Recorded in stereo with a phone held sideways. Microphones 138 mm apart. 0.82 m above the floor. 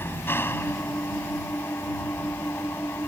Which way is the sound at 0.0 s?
15° left (ahead or behind).